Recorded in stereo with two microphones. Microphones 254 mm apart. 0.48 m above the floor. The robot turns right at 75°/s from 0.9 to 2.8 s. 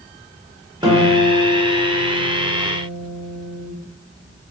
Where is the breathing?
I don't hear breathing.